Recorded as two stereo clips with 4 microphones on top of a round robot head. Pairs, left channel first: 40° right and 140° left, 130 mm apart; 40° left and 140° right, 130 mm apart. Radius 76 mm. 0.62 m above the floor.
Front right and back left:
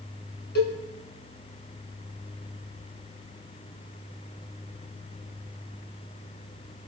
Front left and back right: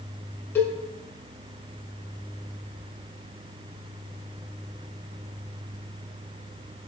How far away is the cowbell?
About 4.5 m.